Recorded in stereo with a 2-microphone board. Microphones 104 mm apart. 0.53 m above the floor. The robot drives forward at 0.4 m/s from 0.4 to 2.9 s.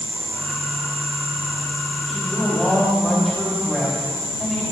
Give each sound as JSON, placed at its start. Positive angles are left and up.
{"t": 2.1, "sound": "a woman speaking", "side_deg": 0, "distance_m": 3.0}